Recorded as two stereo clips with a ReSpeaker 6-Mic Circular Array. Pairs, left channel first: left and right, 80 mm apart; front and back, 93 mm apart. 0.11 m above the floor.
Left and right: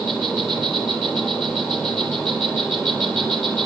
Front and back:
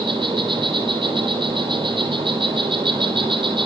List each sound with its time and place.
0.0 s an insect: 170° left, 5 m